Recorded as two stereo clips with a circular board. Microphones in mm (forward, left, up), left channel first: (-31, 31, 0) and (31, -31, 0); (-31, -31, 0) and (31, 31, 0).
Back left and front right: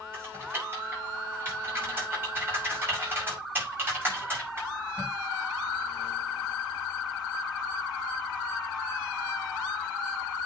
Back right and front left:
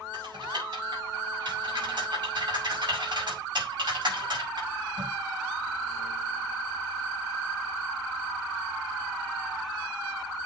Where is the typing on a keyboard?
20° left, 5.5 m.